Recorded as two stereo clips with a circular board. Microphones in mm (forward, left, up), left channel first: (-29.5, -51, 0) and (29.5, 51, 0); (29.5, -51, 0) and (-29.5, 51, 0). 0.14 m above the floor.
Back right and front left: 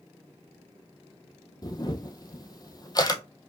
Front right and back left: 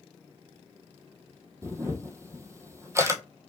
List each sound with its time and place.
1.6 s a camera shutter: 175° right, 0.8 m